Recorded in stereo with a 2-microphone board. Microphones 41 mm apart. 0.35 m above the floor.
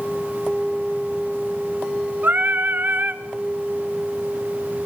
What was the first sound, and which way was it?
Singing, 55° right (ahead or behind).